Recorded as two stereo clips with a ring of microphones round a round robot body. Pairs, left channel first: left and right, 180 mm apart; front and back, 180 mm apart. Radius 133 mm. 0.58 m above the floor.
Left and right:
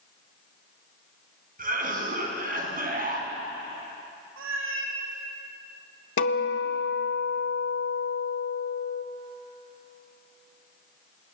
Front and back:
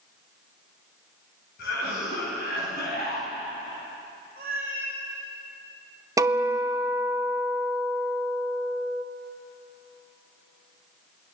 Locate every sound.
1.6 s a cough: 50° right, 5.5 m
4.4 s a cat meowing: 110° right, 3.5 m
6.2 s a guitar: 110° left, 1.7 m